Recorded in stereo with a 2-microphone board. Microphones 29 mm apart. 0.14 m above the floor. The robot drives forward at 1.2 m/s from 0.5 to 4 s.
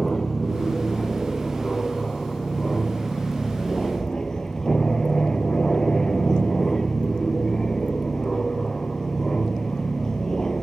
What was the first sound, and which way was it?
An aircraft, 20° left (ahead or behind).